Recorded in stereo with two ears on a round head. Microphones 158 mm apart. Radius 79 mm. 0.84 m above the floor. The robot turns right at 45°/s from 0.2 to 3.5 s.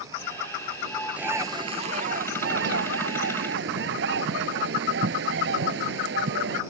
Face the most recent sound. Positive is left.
turn(degrees=-65)